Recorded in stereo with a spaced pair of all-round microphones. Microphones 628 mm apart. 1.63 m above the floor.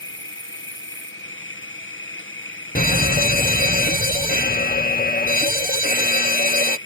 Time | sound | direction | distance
0.0 | an insect | 20° left (ahead or behind) | ?
2.8 | a fire alarm | 15° left (ahead or behind) | ?